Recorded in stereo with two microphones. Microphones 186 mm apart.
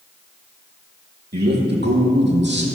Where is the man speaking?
60° right (ahead or behind), 3.5 m; by 2.7 s 70° right (ahead or behind), 3.5 m.